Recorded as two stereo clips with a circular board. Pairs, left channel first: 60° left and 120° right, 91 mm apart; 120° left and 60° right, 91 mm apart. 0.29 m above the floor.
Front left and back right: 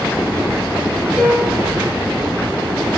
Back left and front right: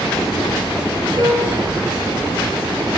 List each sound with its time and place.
1.2 s a piano: 30° right, 6 m